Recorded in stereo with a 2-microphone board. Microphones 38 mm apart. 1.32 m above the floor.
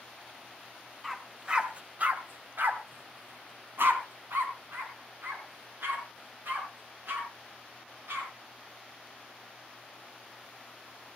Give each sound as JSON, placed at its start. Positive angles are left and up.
{"t": 1.0, "sound": "a dog barking", "side_deg": -10, "distance_m": 2.0}